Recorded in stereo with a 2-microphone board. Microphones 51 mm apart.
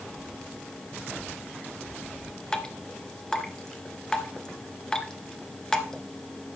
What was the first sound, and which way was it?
Dripping, 15° left (ahead or behind).